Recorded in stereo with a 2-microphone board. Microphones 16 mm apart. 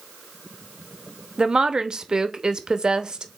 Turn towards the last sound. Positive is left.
turn(degrees=-50)  # may be behind; listen again after turning